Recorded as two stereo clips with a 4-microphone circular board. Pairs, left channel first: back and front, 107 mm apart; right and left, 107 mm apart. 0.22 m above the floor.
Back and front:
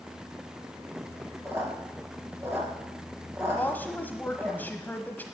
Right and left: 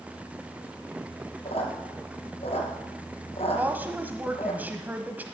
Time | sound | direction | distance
1.4 | a squeak | 70° right | 2.5 m
3.5 | a woman speaking | 140° left | 1.1 m